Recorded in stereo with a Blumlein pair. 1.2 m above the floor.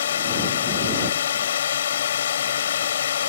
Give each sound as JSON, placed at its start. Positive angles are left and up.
{"t": 0.0, "sound": "a drone", "azimuth_deg": 60}